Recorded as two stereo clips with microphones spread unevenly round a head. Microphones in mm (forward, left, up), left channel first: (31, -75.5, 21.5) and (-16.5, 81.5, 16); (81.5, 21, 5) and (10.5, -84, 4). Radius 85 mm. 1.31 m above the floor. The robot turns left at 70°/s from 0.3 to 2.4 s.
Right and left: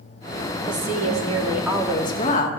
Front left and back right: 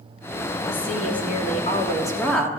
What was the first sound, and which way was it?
A woman speaking, 90° left.